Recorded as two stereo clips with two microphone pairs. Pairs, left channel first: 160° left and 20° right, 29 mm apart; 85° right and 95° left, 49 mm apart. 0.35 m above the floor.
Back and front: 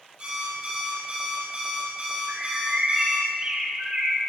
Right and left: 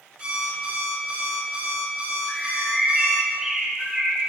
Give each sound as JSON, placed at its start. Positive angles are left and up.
{"t": 0.2, "sound": "an alarm clock", "azimuth_deg": 35, "distance_m": 5.5}
{"t": 2.3, "sound": "a bird", "azimuth_deg": 25, "distance_m": 3.5}